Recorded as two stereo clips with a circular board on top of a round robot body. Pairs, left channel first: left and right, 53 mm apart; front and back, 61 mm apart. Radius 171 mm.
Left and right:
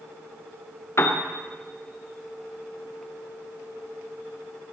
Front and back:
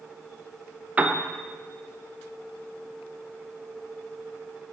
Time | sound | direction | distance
1.0 | a piano | 115° left | 1.6 m